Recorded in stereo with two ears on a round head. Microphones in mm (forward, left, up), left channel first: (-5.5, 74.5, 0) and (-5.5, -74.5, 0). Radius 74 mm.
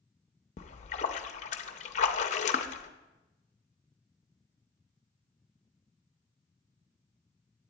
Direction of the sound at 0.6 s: 45° left (ahead or behind).